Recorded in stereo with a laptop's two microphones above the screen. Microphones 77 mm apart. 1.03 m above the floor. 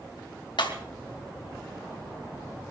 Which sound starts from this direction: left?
Breaking glass, at 0.6 s.